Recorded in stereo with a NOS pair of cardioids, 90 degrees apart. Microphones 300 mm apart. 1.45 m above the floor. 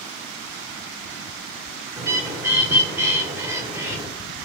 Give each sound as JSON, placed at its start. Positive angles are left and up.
{"t": 2.0, "sound": "a bird", "azimuth_deg": -10, "distance_m": 0.9}